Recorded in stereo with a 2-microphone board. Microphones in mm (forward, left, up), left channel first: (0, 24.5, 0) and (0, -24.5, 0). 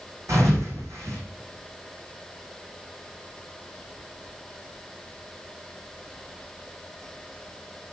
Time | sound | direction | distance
0.3 | a thud | 80° right | 3.5 m